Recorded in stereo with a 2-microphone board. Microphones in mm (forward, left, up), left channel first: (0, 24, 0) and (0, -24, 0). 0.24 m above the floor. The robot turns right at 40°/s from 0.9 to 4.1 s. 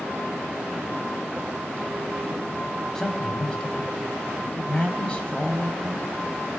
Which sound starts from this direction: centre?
A man speaking, at 3.0 s.